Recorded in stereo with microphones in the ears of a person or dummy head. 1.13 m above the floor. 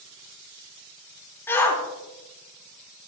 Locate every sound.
1.5 s a shout: 15° left (ahead or behind), 3 m